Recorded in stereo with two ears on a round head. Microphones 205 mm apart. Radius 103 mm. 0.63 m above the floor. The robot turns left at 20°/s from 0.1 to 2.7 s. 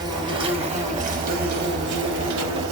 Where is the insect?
20° right, 0.8 m; by 2.7 s 70° right, 0.8 m.